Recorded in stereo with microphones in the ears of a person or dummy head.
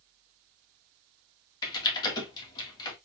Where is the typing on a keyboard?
25° left (ahead or behind), 1.5 m.